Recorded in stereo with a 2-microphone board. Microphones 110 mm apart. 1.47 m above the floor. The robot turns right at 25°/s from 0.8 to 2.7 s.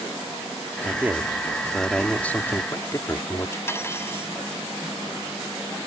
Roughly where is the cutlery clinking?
Left.